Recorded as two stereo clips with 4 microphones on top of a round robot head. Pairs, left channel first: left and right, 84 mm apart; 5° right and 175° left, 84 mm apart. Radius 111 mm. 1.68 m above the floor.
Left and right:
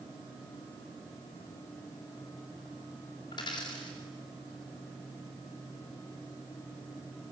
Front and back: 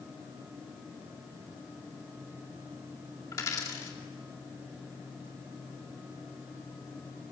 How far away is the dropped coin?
About 2 m.